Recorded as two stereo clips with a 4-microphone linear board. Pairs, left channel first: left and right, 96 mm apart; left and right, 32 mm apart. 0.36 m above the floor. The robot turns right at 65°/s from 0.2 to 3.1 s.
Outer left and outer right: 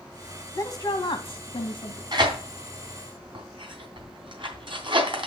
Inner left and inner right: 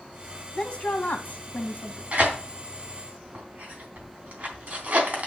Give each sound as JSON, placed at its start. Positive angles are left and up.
{"t": 0.5, "sound": "a woman speaking", "azimuth_deg": 35, "distance_m": 2.0}
{"t": 2.1, "sound": "tearing paper", "side_deg": -45, "distance_m": 3.0}